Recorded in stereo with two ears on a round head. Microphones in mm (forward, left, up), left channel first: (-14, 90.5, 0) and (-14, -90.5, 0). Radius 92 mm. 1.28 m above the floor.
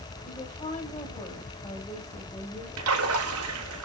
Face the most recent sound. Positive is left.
turn(degrees=-90)